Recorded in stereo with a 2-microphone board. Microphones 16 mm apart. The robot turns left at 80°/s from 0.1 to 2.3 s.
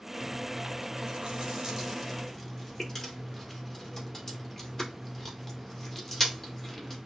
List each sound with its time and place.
0.2 s chewing: 35° right (ahead or behind), 2.0 m; by 7.0 s 20° left (ahead or behind), 2.0 m